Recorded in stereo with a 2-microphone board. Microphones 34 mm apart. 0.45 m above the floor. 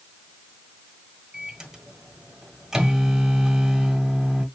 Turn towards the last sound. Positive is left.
turn(degrees=-15)  # may be behind; listen again after turning